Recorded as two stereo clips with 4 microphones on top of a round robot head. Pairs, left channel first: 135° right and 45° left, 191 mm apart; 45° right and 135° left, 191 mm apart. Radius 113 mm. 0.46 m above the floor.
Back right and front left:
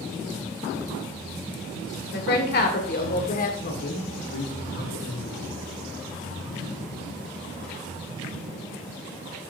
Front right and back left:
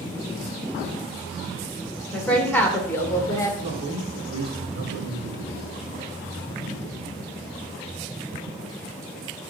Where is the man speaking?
160° right, 4 m.